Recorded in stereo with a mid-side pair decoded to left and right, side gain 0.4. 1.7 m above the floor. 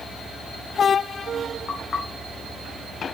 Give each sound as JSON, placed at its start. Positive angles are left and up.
{"t": 1.7, "sound": "knocking", "azimuth_deg": 55, "distance_m": 3.5}